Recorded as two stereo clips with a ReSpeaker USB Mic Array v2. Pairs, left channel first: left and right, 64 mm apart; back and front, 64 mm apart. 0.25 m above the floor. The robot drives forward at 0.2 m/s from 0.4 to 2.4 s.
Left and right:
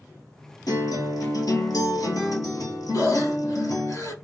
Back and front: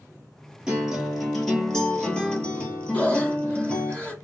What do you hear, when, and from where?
0.7 s a guitar: 80° left, 0.8 m; by 3.9 s 105° left, 0.8 m
2.9 s breathing: 115° left, 0.9 m